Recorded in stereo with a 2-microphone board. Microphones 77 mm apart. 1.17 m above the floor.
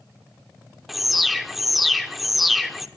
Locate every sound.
0.9 s an alarm: centre (ahead or behind), 1.0 m